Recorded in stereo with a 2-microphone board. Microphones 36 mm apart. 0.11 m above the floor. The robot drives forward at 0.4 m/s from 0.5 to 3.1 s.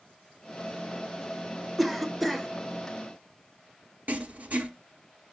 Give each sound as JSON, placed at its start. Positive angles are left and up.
{"t": 1.8, "sound": "a cough", "side_deg": 0, "distance_m": 1.1}
{"t": 4.1, "sound": "writing", "side_deg": -50, "distance_m": 1.1}